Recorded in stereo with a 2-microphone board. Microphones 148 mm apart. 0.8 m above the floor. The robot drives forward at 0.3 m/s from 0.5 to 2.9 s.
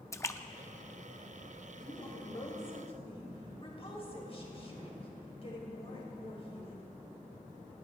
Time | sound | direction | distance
0.1 | a splash | 20° left (ahead or behind) | 0.6 m
1.8 | a woman speaking | 35° left (ahead or behind) | 4 m